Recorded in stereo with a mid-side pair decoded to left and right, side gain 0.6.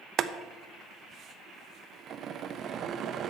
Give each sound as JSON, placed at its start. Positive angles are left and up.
{"t": 0.2, "sound": "boiling", "azimuth_deg": -50, "distance_m": 0.7}